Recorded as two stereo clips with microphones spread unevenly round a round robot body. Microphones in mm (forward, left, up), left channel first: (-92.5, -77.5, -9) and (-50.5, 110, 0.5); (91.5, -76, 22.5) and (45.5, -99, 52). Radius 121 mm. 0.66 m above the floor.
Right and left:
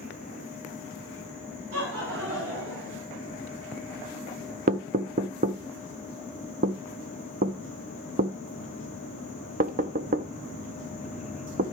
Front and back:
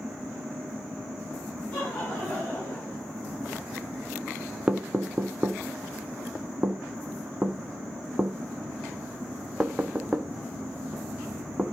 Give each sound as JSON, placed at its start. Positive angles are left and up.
{"t": 1.7, "sound": "laughter", "azimuth_deg": 90, "distance_m": 4.5}
{"t": 4.7, "sound": "knocking", "azimuth_deg": 105, "distance_m": 0.5}